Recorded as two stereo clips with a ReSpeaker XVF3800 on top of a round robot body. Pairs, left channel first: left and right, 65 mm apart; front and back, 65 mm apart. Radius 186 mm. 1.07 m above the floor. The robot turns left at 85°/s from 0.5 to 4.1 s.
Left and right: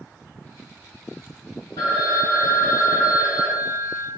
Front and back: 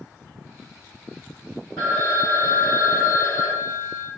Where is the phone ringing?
85° left, 0.9 m; by 4.1 s 115° right, 0.9 m.